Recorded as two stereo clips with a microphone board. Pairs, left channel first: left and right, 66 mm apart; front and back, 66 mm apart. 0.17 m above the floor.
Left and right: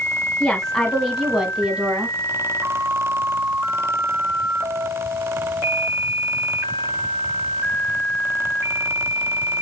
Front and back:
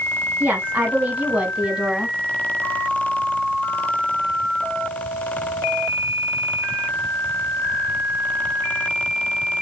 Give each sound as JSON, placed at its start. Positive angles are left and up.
{"t": 0.4, "sound": "a woman speaking", "azimuth_deg": 150, "distance_m": 1.4}